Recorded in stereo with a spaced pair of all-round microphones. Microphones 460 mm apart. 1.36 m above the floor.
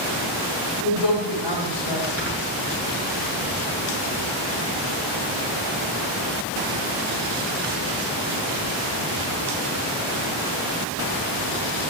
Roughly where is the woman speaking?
Left.